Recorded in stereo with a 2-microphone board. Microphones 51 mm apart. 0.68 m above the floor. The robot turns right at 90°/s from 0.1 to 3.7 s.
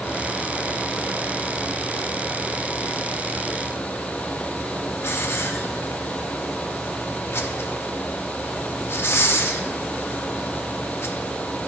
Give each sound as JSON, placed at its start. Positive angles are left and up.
{"t": 5.0, "sound": "a hiss", "side_deg": 55, "distance_m": 0.9}